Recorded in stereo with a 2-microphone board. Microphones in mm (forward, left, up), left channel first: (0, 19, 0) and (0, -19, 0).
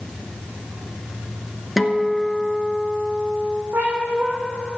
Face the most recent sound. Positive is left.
turn(degrees=-65)  # may be behind; listen again after turning